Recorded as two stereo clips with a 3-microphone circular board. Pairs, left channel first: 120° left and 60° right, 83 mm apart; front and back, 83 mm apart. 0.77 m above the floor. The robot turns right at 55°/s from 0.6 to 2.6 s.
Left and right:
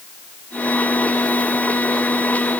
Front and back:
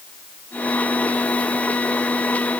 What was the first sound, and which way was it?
Only background noise.